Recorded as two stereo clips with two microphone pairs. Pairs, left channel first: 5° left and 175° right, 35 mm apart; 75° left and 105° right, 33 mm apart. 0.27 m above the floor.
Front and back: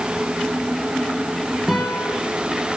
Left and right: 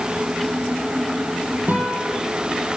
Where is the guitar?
85° right, 4 m.